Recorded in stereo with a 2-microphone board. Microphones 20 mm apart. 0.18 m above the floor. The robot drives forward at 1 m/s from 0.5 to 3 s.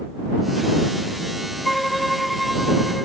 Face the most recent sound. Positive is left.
turn(degrees=0)  # may be behind; listen again after turning